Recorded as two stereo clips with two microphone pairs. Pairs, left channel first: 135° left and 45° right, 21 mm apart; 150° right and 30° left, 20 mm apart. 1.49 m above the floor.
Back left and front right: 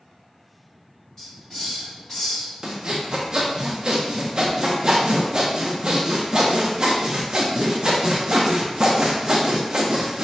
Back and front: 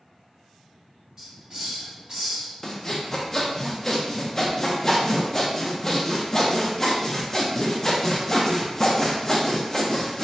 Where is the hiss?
75° left, 1.8 m.